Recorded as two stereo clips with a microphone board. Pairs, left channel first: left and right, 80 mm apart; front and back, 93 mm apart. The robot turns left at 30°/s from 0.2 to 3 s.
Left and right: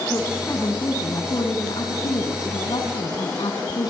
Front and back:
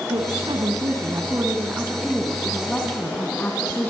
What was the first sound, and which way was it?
A woman speaking, 155° left.